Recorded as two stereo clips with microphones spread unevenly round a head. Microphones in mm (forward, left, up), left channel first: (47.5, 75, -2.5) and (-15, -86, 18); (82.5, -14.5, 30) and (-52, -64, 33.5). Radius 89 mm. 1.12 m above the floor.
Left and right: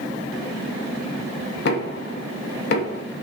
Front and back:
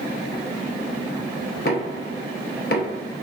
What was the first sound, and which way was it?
Knocking, 50° left.